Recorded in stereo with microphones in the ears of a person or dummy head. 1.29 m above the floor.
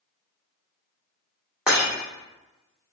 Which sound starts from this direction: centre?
Breaking glass, at 1.7 s.